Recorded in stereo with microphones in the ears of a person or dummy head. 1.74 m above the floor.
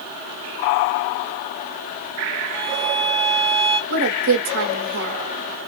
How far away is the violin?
About 0.8 m.